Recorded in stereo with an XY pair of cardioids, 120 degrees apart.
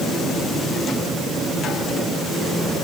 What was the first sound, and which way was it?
Only background noise.